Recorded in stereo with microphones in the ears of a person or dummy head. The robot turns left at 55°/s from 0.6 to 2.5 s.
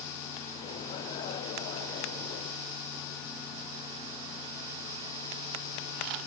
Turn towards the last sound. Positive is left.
No sound to turn to.